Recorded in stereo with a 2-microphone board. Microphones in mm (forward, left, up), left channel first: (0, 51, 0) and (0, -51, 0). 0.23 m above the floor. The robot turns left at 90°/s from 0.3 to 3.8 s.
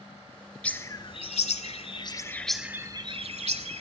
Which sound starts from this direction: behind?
A bird, at 0.6 s.